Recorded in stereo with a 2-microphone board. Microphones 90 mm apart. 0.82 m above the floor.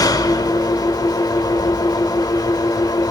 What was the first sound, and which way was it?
An engine running, 45° left (ahead or behind).